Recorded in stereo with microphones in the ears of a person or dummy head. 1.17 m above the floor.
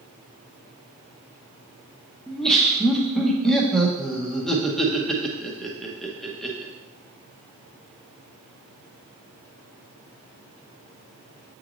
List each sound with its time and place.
2.3 s laughter: 5° left (ahead or behind), 0.9 m